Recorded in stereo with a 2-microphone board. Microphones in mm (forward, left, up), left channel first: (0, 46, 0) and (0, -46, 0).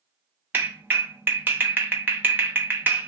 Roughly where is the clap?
Right.